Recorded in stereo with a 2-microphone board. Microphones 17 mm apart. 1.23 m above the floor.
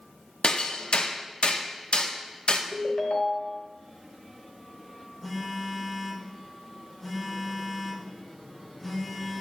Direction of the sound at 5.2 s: 5° right (ahead or behind).